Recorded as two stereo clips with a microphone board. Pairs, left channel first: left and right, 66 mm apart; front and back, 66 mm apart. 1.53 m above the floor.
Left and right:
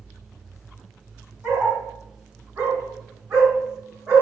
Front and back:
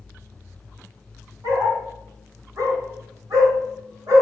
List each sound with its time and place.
1.4 s a dog barking: 150° right, 4.5 m